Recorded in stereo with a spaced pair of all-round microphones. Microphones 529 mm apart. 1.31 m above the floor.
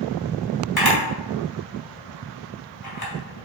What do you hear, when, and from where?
0.8 s a camera shutter: 40° left (ahead or behind), 2 m